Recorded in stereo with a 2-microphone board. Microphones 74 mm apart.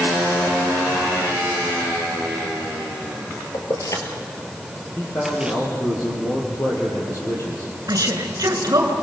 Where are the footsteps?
I don't hear footsteps.